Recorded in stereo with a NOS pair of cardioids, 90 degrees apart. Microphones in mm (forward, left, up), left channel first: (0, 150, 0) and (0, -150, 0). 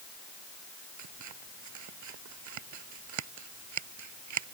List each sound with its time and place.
1.0 s scissors: 70° right